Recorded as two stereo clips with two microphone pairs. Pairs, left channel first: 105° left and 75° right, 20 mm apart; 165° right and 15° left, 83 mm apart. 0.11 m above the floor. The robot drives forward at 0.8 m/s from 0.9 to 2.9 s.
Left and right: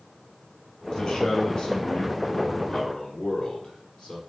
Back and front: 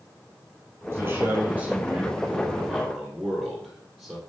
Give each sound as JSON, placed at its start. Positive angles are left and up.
{"t": 0.9, "sound": "a man speaking", "azimuth_deg": 65, "distance_m": 3.0}